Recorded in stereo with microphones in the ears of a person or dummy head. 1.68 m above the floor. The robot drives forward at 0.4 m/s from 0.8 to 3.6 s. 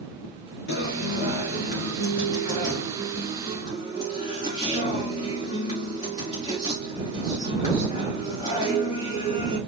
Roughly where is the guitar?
Left.